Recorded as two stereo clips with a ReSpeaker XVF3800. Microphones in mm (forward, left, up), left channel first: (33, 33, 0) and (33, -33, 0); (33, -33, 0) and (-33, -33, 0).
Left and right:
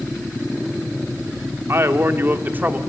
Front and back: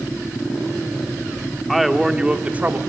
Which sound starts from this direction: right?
A man speaking, at 1.7 s.